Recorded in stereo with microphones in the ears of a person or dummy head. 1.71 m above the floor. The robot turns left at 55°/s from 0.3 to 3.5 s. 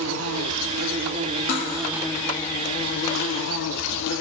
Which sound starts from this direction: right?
An insect, at 0.0 s.